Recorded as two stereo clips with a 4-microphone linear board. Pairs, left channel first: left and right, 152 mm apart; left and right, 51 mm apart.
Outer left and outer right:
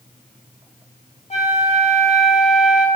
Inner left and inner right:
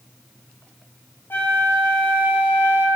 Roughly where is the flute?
Left.